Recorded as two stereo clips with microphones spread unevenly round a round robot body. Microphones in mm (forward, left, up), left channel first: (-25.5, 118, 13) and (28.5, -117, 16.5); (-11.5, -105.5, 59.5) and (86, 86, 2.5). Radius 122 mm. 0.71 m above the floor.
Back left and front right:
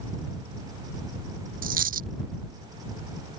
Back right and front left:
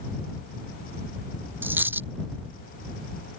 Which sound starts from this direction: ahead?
A dropped coin, at 1.6 s.